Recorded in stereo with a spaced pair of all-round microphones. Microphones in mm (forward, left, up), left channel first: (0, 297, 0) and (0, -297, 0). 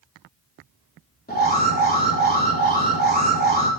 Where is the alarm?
15° left (ahead or behind), 3.5 m.